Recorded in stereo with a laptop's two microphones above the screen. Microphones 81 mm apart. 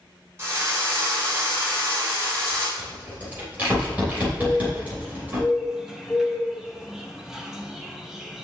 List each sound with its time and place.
0.4 s a drill: 30° right (ahead or behind), 2.5 m
2.8 s a rattle: 20° right (ahead or behind), 3 m
4.4 s a bird: 5° right (ahead or behind), 0.8 m